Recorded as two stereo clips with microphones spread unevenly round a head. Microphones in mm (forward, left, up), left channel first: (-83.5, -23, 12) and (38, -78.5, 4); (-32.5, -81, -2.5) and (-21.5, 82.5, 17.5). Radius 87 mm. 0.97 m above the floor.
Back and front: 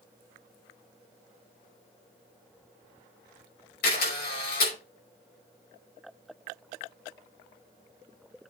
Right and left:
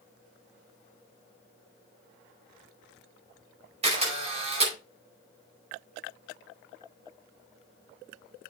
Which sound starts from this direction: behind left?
A camera shutter, at 3.8 s.